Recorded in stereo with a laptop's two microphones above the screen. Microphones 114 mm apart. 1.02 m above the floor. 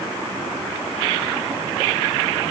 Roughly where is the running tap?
I don't hear a running tap.